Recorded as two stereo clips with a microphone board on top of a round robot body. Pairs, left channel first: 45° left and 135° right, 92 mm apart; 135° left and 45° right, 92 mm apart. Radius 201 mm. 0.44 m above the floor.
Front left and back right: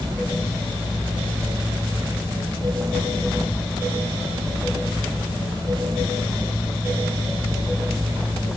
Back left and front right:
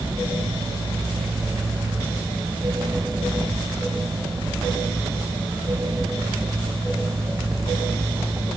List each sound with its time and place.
Only background noise.